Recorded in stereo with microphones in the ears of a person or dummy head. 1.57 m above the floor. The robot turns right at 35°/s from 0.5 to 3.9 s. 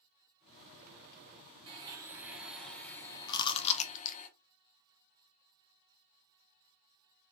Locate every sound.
1.7 s a blender: 30° right, 1.1 m; by 4.3 s 45° left, 1.1 m
3.3 s chewing: 20° left (ahead or behind), 0.8 m; by 4.2 s 40° left (ahead or behind), 0.8 m